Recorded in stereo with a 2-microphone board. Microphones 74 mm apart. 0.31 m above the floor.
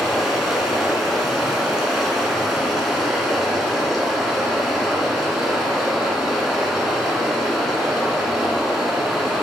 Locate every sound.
0.0 s running water: 5° right (ahead or behind), 1.4 m